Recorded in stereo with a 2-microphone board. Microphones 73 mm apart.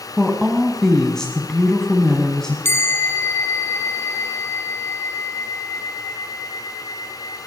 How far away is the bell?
About 0.5 m.